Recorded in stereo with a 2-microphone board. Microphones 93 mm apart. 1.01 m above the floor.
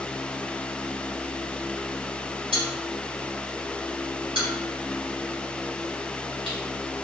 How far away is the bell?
About 1.5 m.